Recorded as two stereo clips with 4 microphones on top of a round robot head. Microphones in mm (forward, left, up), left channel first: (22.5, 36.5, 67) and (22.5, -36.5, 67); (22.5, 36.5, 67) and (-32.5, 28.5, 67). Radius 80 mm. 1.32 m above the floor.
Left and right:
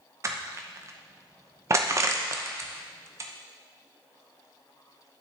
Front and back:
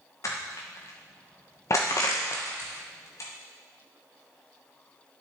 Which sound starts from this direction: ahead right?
Crushing, at 0.2 s.